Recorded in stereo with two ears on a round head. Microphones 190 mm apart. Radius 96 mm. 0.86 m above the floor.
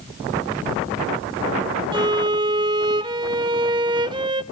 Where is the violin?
20° right (ahead or behind), 0.5 m.